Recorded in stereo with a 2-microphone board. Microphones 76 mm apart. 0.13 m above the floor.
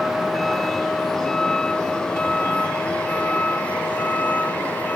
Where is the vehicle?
Centre (ahead or behind); by 5.0 s 25° left (ahead or behind).